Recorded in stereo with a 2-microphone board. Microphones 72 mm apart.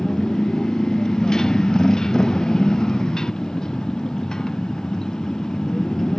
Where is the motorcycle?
10° left (ahead or behind).